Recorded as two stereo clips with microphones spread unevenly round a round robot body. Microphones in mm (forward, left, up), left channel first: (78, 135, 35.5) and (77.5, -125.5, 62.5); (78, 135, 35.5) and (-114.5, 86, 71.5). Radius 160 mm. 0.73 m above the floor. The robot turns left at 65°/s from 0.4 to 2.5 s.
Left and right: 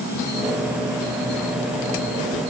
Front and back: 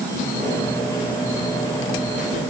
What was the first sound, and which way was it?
Only background noise.